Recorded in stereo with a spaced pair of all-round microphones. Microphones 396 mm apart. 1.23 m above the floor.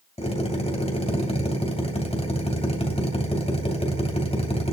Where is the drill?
15° left (ahead or behind), 3 m.